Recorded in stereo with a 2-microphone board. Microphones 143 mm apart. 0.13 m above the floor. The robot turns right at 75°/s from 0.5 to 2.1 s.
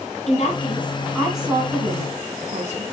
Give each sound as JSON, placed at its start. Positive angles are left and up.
{"t": 0.3, "sound": "a woman speaking", "side_deg": 55, "distance_m": 3.5}